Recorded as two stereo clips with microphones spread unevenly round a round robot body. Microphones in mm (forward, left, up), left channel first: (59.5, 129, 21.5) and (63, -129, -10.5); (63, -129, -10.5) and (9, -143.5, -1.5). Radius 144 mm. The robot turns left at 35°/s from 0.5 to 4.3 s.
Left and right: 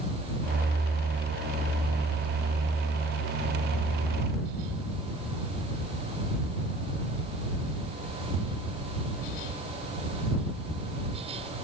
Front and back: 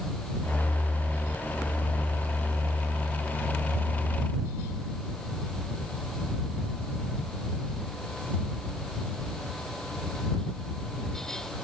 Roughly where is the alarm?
No alarm in this recording.